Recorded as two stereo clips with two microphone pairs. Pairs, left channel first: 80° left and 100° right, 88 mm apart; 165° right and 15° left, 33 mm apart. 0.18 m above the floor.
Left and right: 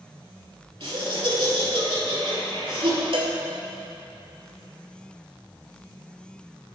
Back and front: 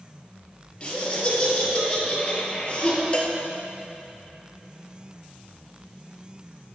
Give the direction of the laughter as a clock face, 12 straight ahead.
4 o'clock.